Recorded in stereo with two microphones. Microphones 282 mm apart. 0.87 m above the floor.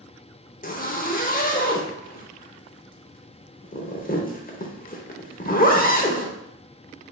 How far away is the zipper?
About 0.7 m.